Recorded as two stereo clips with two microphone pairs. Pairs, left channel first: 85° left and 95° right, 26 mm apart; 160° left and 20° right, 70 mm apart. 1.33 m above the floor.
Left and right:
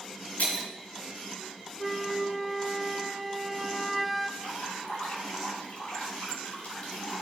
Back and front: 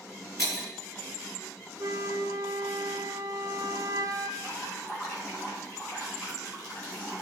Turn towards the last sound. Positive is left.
turn(degrees=115)